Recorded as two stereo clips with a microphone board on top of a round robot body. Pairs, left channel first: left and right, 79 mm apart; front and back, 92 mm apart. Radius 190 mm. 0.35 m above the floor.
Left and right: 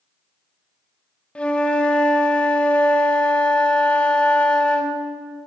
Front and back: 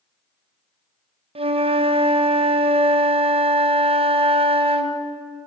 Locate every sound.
1.4 s a flute: 165° left, 1.2 m